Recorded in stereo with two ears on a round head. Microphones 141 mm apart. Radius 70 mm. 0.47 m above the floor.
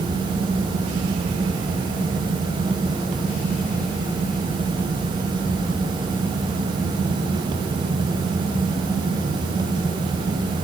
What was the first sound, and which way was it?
Only background noise.